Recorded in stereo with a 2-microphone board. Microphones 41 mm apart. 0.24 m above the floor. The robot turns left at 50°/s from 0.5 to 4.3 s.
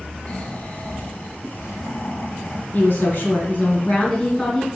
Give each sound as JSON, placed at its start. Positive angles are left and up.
{"t": 0.3, "sound": "snoring", "azimuth_deg": 150, "distance_m": 2.0}
{"t": 2.7, "sound": "a woman speaking", "azimuth_deg": 100, "distance_m": 2.5}